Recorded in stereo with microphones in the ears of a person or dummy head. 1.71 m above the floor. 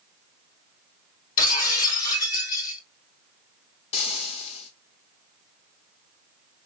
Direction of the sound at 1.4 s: 55° left (ahead or behind).